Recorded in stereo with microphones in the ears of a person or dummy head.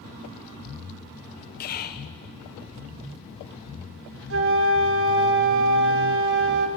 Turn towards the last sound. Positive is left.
turn(degrees=-60)  # may be behind; listen again after turning